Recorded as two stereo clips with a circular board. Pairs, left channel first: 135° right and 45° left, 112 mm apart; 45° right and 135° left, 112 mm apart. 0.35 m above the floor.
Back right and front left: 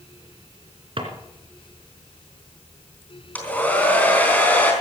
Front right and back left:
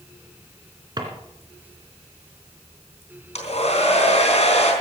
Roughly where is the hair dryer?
Ahead right.